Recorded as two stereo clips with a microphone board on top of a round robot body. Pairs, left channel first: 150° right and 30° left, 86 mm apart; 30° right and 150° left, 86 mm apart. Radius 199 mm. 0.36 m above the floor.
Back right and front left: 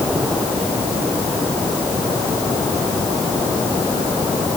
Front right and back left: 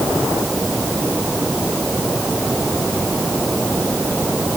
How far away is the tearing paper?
No tearing paper in this recording.